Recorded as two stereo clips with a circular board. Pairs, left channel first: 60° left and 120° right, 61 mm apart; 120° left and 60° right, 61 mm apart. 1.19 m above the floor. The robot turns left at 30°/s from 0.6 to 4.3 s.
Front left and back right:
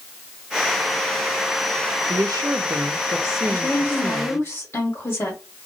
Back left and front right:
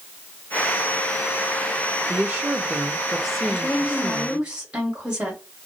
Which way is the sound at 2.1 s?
110° right.